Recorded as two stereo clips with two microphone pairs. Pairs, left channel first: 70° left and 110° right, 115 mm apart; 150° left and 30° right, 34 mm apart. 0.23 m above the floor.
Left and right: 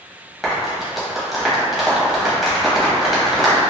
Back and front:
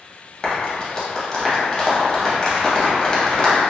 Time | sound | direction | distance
0.4 | a clap | 160° left | 0.7 m